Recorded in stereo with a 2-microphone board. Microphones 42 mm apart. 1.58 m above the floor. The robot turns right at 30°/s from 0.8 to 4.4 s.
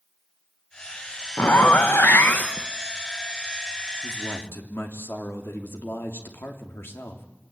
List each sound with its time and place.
1.4 s a zipper: 85° left, 1.2 m; by 2.7 s 125° left, 1.2 m
4.0 s a man speaking: 65° left (ahead or behind), 3 m; by 7.3 s 75° left (ahead or behind), 3 m